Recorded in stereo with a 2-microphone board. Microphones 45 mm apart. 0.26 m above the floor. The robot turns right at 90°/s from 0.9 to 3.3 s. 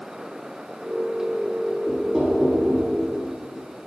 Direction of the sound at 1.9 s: 150° left.